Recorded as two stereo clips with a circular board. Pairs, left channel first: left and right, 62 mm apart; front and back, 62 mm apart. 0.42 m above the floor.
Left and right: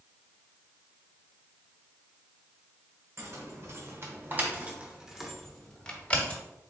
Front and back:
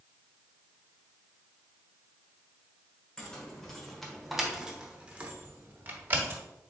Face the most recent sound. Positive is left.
turn(degrees=145)